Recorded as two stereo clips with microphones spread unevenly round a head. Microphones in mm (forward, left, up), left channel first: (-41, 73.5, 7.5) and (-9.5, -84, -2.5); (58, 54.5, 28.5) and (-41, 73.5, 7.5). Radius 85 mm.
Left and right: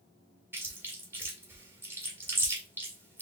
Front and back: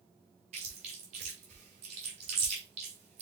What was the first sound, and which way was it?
Chewing, 155° right.